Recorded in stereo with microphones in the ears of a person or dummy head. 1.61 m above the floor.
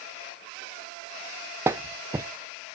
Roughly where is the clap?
Centre.